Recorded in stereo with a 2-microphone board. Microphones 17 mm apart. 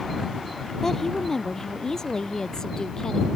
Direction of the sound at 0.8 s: 30° left (ahead or behind).